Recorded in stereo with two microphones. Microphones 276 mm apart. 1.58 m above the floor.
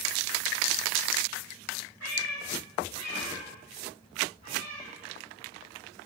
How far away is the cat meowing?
About 3.5 m.